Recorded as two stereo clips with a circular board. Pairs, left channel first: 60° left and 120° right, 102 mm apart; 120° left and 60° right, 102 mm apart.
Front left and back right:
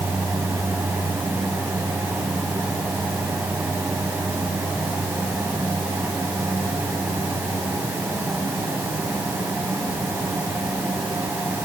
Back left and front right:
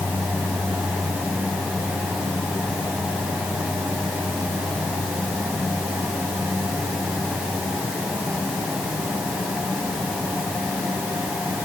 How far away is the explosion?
I don't hear an explosion.